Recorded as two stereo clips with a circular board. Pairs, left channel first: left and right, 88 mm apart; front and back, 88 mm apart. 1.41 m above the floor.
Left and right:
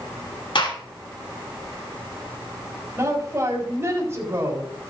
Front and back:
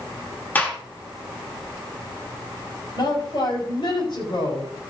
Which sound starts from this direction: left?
A gunshot, at 0.6 s.